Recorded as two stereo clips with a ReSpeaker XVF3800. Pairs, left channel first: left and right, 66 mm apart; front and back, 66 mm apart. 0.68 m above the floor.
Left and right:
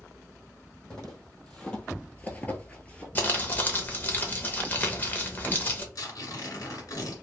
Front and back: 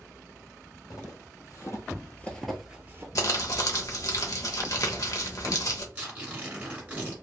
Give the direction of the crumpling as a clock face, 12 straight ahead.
11 o'clock.